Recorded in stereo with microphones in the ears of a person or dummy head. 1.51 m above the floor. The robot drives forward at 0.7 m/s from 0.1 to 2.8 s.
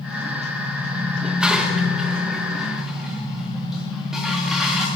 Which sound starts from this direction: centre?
Dishes clattering, at 1.2 s.